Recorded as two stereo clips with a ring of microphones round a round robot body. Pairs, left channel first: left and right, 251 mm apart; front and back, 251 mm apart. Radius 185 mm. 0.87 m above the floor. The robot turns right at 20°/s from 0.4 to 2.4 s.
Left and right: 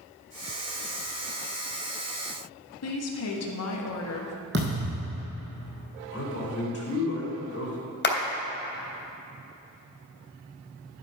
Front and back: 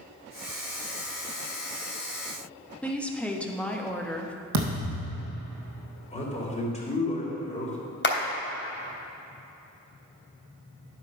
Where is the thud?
150° right, 2.5 m.